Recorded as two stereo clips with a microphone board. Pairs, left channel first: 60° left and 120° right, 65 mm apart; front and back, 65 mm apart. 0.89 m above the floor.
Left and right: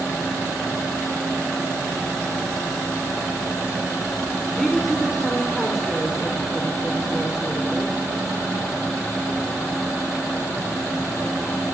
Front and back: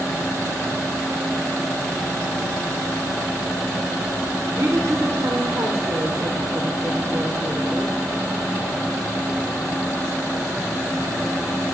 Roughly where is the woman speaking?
Behind left.